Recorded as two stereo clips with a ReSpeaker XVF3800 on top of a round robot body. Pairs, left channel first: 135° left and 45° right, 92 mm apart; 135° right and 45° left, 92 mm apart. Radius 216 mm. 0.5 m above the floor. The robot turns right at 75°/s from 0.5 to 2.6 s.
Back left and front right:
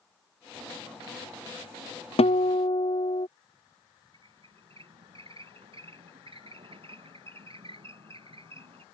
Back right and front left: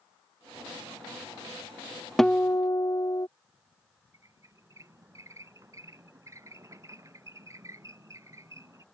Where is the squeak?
15° right.